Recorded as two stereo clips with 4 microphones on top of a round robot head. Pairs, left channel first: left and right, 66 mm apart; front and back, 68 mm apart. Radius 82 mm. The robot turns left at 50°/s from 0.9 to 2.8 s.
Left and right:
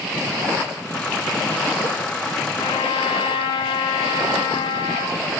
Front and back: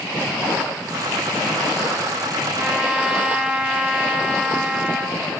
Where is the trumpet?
120° left, 1.2 m; by 5.2 s 110° left, 1.2 m.